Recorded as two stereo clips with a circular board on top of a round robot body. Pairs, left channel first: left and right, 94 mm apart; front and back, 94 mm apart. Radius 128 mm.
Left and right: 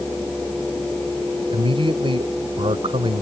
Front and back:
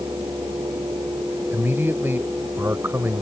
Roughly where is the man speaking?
Right.